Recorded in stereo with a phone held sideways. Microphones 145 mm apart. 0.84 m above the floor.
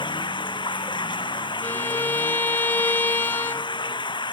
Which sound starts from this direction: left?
Running water, at 0.0 s.